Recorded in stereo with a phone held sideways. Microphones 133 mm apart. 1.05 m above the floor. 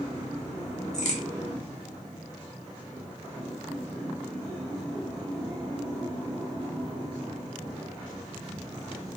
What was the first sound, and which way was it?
A crack, 65° left (ahead or behind).